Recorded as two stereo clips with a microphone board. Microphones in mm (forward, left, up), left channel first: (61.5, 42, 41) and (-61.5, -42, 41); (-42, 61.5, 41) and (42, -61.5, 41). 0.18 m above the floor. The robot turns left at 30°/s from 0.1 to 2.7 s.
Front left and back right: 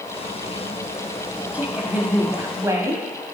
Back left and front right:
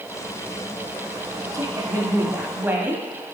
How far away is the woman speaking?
About 1.2 m.